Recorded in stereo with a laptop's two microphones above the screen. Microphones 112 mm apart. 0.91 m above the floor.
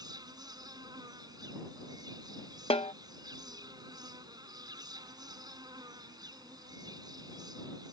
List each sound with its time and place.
0.0 s an insect: 35° right (ahead or behind)
2.7 s a snare drum: 55° left (ahead or behind)